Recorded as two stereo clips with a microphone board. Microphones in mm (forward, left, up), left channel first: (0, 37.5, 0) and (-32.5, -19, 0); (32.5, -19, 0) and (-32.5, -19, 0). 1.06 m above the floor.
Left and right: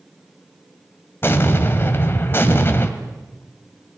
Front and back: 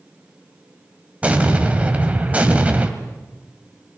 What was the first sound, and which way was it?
An explosion, 110° left.